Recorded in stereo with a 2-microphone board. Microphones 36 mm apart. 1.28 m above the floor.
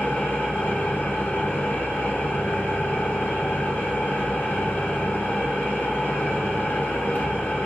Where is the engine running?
55° left (ahead or behind), 1.0 m.